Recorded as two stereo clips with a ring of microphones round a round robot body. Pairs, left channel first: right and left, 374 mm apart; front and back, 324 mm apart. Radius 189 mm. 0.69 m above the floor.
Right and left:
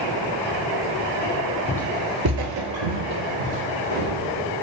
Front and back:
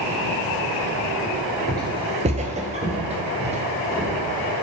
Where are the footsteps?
120° right, 0.6 m; by 4.5 s 110° left, 3 m.